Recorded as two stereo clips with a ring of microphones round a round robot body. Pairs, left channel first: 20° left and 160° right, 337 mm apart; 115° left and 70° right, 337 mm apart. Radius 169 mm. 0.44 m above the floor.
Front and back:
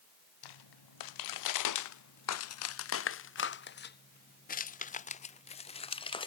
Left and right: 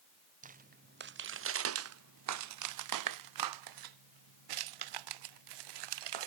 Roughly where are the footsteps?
Ahead.